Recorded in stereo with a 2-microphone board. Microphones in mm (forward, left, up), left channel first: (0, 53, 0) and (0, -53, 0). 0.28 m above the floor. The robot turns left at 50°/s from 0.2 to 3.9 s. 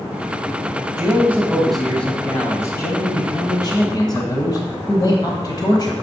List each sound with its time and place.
1.0 s a man speaking: 140° right, 1.4 m; by 5.9 s 70° left, 1.4 m